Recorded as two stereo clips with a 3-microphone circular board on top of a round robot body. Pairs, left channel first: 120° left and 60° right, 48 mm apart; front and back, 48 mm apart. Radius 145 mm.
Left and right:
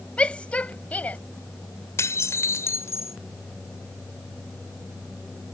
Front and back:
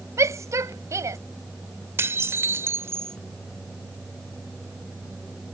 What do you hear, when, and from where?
0.2 s a shout: 175° right; by 1.2 s straight behind
2.0 s dishes clattering: 145° left